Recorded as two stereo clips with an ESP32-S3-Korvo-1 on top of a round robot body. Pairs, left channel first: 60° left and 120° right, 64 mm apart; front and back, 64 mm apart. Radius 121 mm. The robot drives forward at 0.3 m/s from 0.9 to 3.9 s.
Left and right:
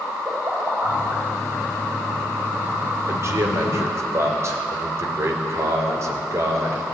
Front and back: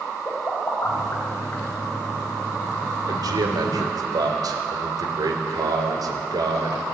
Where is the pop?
60° right, 4.5 m.